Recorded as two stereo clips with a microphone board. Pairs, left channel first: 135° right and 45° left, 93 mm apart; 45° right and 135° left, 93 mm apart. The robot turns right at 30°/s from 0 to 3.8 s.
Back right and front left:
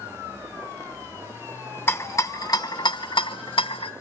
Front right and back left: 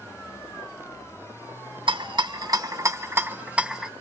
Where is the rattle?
160° left, 0.9 m; by 3.9 s 140° right, 0.9 m.